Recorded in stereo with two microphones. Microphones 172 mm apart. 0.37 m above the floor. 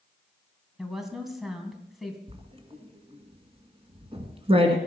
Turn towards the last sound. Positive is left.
turn(degrees=-35)  # may be behind; listen again after turning